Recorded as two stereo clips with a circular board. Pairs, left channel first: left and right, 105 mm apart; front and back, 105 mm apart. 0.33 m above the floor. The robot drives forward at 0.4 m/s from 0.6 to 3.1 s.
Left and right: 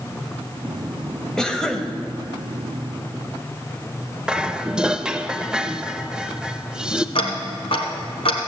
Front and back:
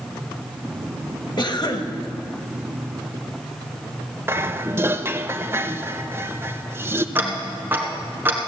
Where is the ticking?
110° left, 1.6 m.